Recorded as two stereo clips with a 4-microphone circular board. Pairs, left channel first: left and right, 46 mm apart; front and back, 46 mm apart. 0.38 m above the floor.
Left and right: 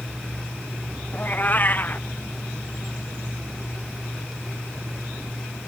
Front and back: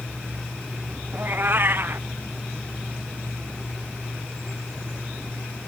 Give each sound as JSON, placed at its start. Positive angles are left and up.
{"t": 1.1, "sound": "a cat meowing", "azimuth_deg": 140}